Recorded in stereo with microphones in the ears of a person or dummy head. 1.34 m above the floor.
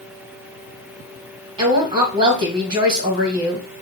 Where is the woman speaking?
30° right (ahead or behind), 1.6 m.